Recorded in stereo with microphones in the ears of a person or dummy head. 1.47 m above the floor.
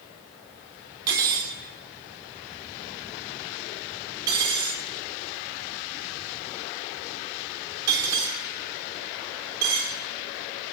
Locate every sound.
1.1 s cutlery clinking: 20° right (ahead or behind), 0.6 m